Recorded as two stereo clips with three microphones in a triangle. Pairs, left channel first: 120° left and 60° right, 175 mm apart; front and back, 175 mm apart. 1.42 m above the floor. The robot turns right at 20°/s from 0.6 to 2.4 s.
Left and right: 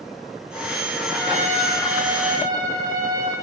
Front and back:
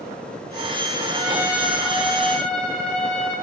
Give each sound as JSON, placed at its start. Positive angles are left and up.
{"t": 1.1, "sound": "a trumpet", "azimuth_deg": -110, "distance_m": 5.0}